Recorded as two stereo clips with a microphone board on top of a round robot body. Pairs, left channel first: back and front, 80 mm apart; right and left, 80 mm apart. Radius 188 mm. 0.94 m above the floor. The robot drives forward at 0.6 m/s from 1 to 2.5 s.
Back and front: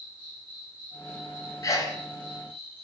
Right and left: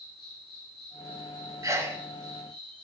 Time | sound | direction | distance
0.0 | an insect | 5° right | 1.8 m
1.6 | a sneeze | 135° left | 0.8 m